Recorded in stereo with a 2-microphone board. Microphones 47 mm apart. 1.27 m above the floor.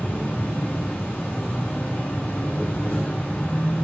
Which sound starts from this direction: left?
An insect, at 0.0 s.